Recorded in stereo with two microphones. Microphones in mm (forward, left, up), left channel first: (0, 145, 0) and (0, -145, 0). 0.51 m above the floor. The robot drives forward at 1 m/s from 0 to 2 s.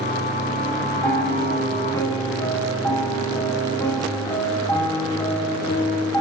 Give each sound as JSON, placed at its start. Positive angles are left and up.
{"t": 1.0, "sound": "a piano", "side_deg": 10, "distance_m": 6.5}